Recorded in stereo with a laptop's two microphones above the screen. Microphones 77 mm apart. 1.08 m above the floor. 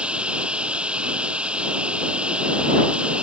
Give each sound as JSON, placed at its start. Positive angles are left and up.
{"t": 0.0, "sound": "running water", "side_deg": -15}